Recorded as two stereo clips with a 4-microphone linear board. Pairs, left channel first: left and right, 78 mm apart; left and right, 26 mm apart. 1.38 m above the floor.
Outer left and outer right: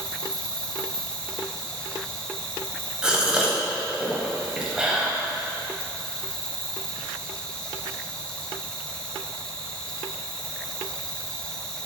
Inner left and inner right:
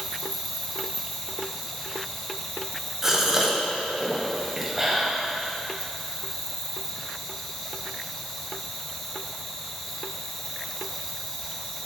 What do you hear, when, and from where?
0.0 s an insect: 10° left (ahead or behind), 0.9 m
3.0 s a gasp: 10° right (ahead or behind), 1.4 m